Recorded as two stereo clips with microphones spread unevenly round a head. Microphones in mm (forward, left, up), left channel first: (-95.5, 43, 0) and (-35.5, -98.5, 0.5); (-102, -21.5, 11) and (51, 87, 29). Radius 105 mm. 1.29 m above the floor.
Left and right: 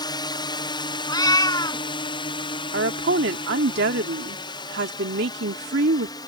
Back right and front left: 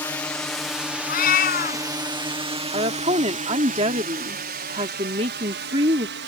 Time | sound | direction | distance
0.0 | a drone | 150° left | ?
1.1 | a cat meowing | 175° left | ?
2.7 | a woman speaking | 30° right | ?